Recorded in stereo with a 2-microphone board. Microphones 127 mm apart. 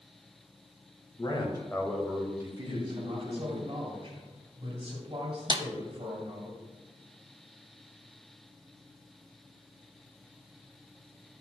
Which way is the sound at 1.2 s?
40° left (ahead or behind).